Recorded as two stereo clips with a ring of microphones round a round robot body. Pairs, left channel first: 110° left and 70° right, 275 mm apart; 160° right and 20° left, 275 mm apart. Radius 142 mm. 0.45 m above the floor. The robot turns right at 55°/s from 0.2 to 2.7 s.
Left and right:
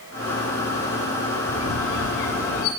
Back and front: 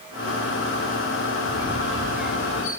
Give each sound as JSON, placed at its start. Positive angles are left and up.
{"t": 1.5, "sound": "a squeak", "azimuth_deg": 70, "distance_m": 1.7}